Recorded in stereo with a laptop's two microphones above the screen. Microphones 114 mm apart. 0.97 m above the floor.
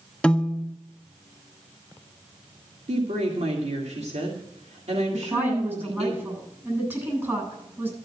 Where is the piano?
10° left (ahead or behind), 0.7 m.